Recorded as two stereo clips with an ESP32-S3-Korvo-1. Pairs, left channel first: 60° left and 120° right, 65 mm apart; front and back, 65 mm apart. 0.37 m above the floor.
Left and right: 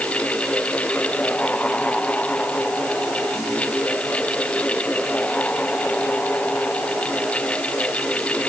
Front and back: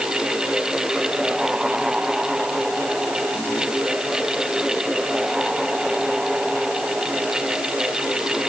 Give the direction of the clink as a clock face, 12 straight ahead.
No clink in this recording.